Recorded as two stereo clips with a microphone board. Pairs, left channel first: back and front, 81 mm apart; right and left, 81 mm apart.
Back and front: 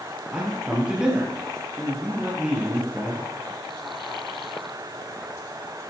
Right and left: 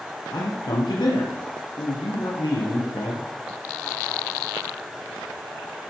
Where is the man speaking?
85° right, 4 m.